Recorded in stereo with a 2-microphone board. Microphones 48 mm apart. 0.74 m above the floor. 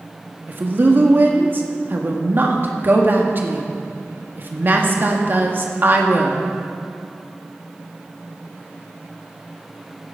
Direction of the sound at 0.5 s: 45° right (ahead or behind).